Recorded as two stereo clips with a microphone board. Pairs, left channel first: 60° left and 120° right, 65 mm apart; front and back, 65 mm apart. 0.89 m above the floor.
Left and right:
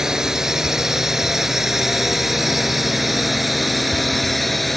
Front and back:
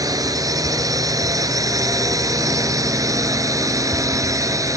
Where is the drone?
160° left; by 4.8 s 150° left.